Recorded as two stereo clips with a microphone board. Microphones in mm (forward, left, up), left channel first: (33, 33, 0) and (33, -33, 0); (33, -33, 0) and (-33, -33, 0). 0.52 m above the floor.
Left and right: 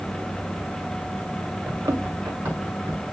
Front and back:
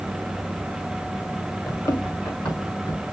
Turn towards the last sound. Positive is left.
turn(degrees=-25)